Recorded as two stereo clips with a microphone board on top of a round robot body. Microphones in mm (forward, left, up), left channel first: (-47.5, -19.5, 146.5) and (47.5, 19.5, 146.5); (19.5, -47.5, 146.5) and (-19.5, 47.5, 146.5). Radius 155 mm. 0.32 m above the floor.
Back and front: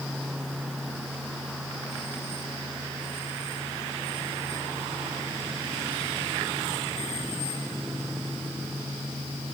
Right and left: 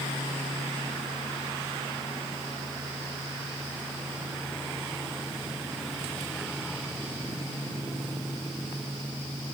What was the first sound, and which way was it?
Only background noise.